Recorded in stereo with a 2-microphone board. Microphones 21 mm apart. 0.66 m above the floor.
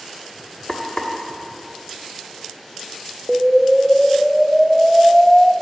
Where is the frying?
40° left (ahead or behind), 1.2 m.